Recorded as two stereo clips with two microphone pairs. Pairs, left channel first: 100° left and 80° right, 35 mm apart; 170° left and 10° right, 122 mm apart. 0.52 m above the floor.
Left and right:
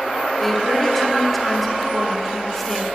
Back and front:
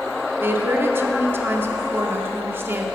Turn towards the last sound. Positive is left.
turn(degrees=20)